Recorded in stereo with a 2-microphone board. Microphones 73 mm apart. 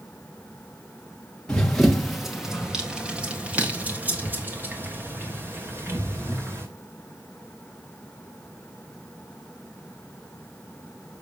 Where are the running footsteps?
10° left (ahead or behind), 1.7 m; by 6.7 s 35° right (ahead or behind), 4 m.